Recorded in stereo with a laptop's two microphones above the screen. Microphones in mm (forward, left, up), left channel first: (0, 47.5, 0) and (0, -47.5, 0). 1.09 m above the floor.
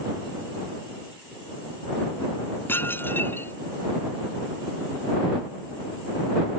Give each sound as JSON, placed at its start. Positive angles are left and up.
{"t": 2.7, "sound": "dishes clattering", "side_deg": 20}